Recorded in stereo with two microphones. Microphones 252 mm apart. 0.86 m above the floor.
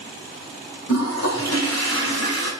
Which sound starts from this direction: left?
A toilet flushing, at 0.9 s.